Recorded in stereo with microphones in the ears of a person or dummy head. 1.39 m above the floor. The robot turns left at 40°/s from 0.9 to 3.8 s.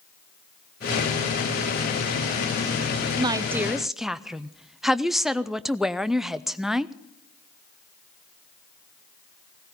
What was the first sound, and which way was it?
A woman speaking, 25° right (ahead or behind).